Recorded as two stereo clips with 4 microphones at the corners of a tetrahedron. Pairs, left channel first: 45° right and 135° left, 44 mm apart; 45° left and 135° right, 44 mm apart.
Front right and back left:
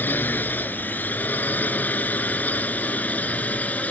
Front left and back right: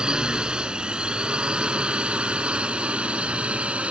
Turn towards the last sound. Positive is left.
turn(degrees=-85)